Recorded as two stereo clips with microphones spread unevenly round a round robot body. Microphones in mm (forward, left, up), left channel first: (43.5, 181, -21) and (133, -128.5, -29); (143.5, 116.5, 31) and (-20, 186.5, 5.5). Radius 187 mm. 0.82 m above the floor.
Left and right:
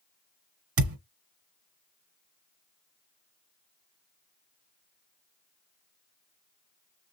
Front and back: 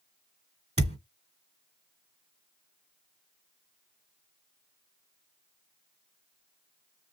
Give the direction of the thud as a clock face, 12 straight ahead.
4 o'clock.